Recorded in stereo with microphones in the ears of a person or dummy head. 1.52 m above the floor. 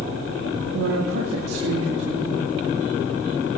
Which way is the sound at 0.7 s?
85° right.